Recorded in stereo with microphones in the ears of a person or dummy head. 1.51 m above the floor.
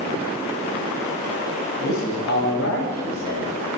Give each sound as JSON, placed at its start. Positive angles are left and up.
{"t": 1.8, "sound": "a man speaking", "side_deg": 60, "distance_m": 8.0}